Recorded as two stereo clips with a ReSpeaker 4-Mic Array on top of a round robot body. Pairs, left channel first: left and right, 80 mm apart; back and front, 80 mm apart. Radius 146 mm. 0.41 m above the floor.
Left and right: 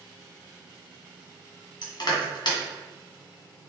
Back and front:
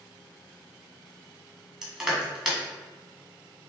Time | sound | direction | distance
1.8 | crushing | 80° left | 1.7 m